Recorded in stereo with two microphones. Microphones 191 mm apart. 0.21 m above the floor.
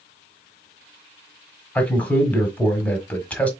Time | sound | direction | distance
1.8 | a man speaking | 10° left (ahead or behind) | 1.1 m